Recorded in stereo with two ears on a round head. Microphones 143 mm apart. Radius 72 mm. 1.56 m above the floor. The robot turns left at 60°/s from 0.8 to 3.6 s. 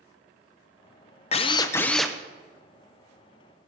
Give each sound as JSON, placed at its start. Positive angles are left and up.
{"t": 1.3, "sound": "a drill", "azimuth_deg": 45, "distance_m": 0.6}